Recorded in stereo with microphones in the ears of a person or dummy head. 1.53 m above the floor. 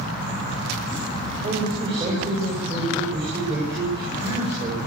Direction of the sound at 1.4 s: 30° right (ahead or behind).